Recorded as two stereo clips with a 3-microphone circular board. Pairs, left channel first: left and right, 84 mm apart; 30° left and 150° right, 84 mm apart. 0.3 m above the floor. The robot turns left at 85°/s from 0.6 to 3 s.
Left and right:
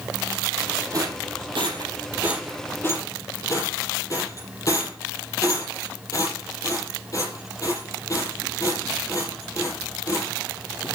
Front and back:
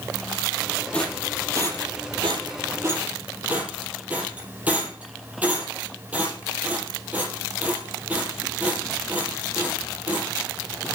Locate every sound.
0.9 s a rattle: 45° right, 5.5 m; by 10.3 s 140° left, 5.5 m